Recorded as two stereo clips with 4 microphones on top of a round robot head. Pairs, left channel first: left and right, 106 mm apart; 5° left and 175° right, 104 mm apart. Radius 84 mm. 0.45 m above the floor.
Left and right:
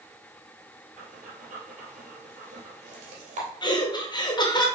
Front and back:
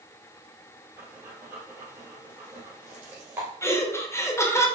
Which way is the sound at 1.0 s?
100° right.